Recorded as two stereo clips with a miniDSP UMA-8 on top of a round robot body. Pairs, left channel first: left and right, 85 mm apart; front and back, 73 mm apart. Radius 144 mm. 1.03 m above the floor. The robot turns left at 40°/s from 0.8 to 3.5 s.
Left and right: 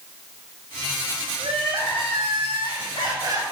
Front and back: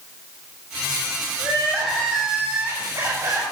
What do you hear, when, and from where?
1.4 s crying: 60° right, 4.5 m; by 3.5 s 145° right, 4.5 m